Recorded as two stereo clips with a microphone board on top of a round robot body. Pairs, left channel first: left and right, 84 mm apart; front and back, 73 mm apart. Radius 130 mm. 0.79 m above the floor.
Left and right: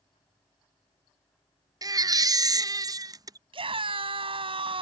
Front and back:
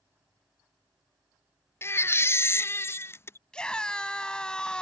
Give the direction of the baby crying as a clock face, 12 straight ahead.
2 o'clock.